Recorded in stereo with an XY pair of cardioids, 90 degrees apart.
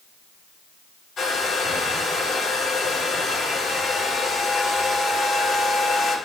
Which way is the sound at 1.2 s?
65° left.